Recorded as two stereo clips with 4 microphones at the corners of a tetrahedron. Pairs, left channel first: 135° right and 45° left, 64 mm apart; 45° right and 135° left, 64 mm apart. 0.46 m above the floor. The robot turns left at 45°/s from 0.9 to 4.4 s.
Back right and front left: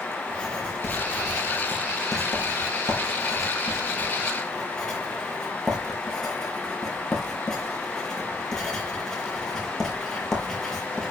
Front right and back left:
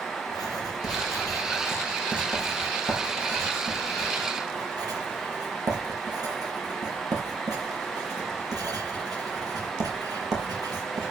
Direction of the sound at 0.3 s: 60° right.